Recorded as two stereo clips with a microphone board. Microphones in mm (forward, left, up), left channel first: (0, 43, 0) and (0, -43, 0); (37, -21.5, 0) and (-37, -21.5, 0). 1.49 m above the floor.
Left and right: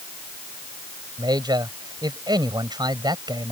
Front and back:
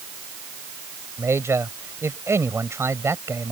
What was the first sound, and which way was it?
A man speaking, 125° right.